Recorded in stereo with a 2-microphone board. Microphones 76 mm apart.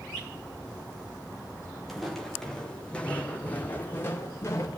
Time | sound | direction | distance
1.9 | footsteps | centre (ahead or behind) | 5 m